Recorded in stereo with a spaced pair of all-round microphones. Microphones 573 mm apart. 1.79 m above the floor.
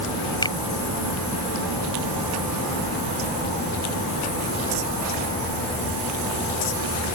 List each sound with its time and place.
0.4 s a finger snap: 5° left (ahead or behind)